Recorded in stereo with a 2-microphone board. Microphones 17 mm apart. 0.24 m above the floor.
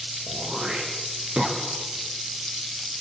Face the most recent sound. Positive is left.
turn(degrees=-50)  # may be behind; listen again after turning